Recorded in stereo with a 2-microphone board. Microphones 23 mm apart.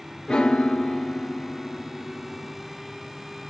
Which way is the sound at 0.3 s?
40° left (ahead or behind).